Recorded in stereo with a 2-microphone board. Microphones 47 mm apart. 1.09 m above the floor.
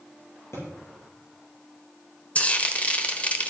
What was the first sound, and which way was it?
A thud, 75° left (ahead or behind).